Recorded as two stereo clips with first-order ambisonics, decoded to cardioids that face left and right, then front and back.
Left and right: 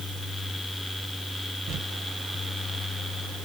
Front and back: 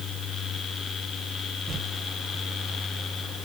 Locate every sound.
1.7 s crumpling: 95° right, 0.8 m